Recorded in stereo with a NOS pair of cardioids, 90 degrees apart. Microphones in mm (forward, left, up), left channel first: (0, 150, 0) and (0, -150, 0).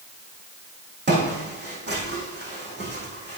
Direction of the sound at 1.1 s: 35° right.